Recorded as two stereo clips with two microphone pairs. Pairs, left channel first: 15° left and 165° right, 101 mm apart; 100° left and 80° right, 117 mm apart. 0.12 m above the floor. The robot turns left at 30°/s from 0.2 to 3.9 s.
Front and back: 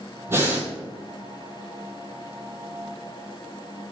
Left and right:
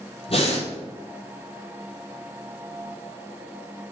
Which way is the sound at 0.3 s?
130° left.